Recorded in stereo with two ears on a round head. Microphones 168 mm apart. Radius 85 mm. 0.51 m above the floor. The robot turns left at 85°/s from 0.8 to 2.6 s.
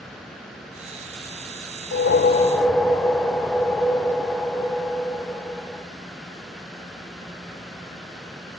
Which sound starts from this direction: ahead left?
A whoosh, at 1.9 s.